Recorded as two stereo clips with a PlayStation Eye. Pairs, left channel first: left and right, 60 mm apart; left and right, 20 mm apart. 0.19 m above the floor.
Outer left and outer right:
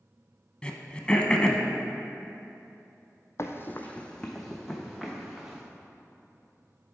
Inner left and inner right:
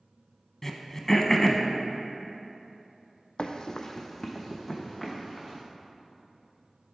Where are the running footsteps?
55° left (ahead or behind), 0.5 m; by 5.6 s 10° right (ahead or behind), 1.6 m.